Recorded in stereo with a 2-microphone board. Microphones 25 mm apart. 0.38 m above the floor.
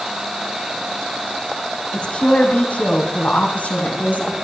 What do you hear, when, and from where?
1.9 s a woman speaking: 40° left (ahead or behind), 2.5 m; by 4.3 s 75° left (ahead or behind), 3.5 m